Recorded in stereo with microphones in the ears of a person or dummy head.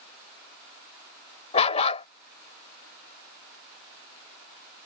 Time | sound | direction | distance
1.5 | a dog barking | 30° left (ahead or behind) | ?